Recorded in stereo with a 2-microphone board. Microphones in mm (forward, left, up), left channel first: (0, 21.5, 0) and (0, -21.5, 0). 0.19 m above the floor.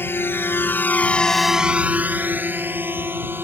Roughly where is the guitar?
No guitar in this recording.